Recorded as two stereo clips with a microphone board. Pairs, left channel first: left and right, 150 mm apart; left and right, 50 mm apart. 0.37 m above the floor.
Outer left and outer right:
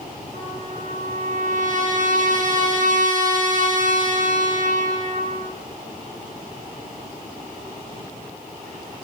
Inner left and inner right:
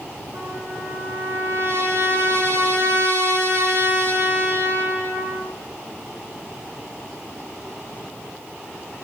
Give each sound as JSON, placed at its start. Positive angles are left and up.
{"t": 0.3, "sound": "a trumpet", "side_deg": -60, "distance_m": 9.5}